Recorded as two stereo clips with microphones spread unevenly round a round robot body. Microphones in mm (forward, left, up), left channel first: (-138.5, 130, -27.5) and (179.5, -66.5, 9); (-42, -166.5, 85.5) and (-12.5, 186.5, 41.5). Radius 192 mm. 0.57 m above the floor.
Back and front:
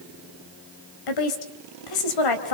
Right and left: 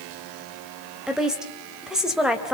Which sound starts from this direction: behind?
A woman speaking, at 1.1 s.